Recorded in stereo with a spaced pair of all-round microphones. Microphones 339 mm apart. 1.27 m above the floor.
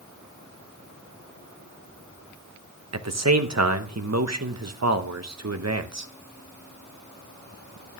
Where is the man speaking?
50° right (ahead or behind), 0.9 m.